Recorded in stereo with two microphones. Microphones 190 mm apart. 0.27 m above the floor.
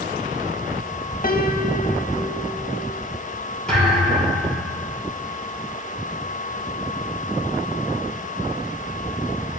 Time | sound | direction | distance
1.2 | a piano | 50° left (ahead or behind) | 0.6 m
3.7 | a thud | 5° left (ahead or behind) | 3 m